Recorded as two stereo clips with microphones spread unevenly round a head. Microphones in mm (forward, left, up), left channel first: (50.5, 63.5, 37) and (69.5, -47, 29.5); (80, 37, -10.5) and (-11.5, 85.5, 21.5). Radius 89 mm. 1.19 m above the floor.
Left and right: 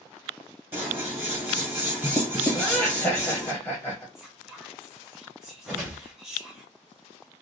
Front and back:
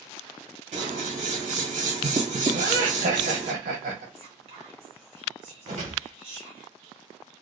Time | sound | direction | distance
0.7 | scissors | 155° right | 0.8 m
2.5 | laughter | straight behind | 0.8 m
4.2 | whispering | 160° right | 0.8 m
5.7 | a whoosh | 160° right | 0.8 m